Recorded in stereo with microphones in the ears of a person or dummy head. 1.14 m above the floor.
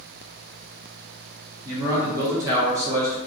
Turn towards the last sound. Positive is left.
turn(degrees=-20)  # may be behind; listen again after turning